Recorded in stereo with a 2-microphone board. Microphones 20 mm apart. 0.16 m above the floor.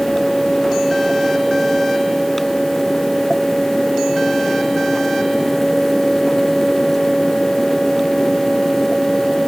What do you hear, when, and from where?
Only background noise.